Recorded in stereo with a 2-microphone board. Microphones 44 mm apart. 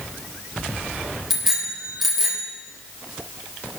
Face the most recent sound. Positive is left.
turn(degrees=0)  # may be behind; listen again after turning